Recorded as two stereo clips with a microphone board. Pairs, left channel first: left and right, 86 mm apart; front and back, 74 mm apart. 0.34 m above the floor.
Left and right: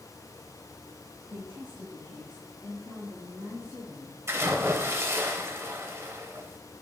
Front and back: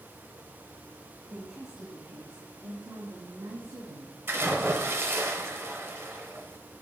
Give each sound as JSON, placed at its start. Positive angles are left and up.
{"t": 1.3, "sound": "a woman speaking", "azimuth_deg": -135, "distance_m": 1.5}
{"t": 4.3, "sound": "a splash", "azimuth_deg": -135, "distance_m": 0.9}